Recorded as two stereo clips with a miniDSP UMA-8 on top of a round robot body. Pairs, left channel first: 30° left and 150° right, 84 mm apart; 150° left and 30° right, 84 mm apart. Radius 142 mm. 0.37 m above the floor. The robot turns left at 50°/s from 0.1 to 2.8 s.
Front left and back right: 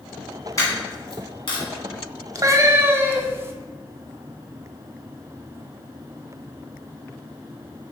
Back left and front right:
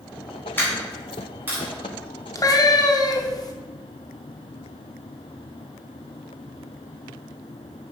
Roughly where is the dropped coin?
Left.